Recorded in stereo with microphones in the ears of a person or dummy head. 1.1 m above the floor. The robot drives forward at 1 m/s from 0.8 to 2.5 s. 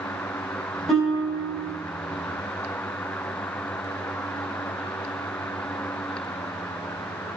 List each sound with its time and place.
0.9 s a guitar: centre (ahead or behind), 5.5 m